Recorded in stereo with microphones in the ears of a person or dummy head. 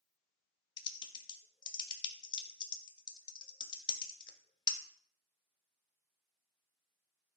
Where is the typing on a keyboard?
25° left (ahead or behind), 0.7 m.